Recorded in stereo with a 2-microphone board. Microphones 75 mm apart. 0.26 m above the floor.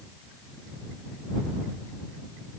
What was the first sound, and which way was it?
Only background noise.